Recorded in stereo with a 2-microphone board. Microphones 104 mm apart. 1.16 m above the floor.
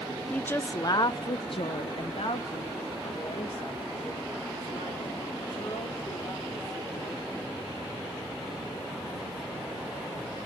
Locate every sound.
0.3 s a woman speaking: 10° left (ahead or behind), 0.6 m; by 7.4 s 45° left (ahead or behind), 3.5 m